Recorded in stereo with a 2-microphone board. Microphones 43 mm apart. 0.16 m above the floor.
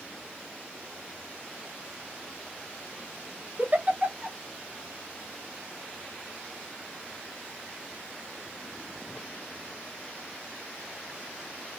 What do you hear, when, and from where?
3.6 s a giggle: 35° right (ahead or behind), 0.7 m